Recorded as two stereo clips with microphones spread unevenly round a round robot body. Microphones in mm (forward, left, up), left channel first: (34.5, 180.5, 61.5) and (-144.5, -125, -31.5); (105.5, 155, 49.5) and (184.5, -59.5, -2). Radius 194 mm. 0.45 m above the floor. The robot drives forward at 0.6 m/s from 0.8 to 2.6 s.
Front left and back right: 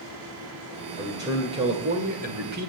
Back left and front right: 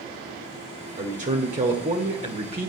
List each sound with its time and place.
1.0 s a man speaking: 55° right, 1.8 m; by 2.7 s 105° right, 1.7 m